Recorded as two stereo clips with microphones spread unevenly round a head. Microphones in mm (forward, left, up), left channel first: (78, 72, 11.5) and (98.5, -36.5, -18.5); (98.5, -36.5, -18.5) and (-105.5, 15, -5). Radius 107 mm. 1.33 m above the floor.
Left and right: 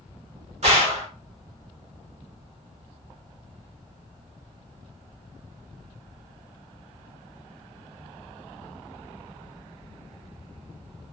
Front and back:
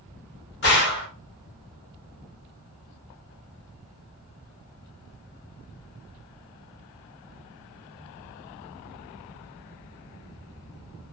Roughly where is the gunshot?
Ahead right.